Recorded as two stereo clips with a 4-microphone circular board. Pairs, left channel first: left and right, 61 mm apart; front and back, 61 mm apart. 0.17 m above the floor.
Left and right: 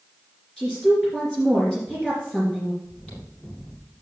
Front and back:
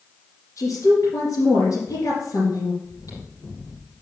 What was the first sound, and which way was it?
A woman speaking, 10° left.